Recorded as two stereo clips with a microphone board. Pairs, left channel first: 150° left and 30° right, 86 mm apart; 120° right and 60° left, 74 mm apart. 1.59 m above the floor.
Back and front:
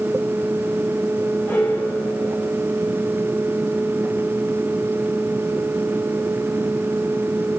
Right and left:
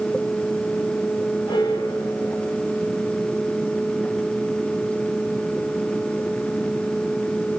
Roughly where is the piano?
Behind right.